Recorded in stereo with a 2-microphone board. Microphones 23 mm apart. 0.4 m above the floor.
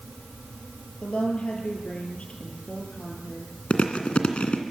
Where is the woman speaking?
75° left (ahead or behind), 7.5 m; by 3.5 s 85° left, 7.5 m.